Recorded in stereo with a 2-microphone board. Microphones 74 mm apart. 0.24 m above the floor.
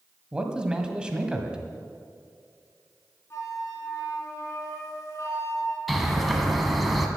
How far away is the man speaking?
About 1.4 m.